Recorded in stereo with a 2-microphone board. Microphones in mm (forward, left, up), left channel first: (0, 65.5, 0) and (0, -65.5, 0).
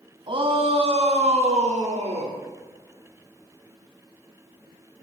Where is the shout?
45° right (ahead or behind), 1.9 m; by 2.4 s 65° right (ahead or behind), 3 m.